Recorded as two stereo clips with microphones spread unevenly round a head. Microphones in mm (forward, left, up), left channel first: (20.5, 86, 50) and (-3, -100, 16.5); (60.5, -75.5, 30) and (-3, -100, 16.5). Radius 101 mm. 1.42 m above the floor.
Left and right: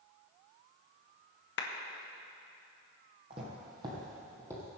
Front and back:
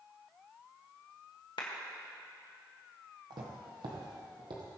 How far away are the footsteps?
About 2.5 m.